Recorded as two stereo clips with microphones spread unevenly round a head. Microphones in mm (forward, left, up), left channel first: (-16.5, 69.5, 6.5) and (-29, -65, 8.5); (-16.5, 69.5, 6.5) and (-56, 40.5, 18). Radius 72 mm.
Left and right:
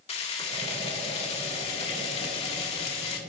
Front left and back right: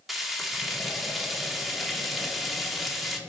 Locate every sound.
0.1 s frying: 130° left, 1.9 m